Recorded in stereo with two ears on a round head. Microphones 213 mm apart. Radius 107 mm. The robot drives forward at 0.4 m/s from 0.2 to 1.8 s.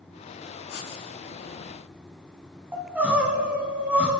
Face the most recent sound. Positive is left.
turn(degrees=-10)  # may be behind; listen again after turning